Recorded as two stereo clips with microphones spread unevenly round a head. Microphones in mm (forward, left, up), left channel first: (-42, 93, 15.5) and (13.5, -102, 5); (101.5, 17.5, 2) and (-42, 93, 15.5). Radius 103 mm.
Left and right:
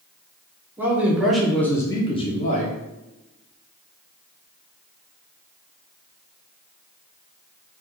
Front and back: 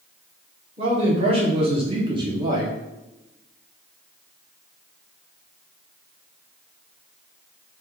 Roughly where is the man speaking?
Behind right.